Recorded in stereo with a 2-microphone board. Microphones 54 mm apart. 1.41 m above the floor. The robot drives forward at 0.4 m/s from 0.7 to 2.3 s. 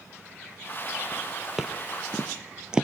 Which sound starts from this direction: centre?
Footsteps, at 1.6 s.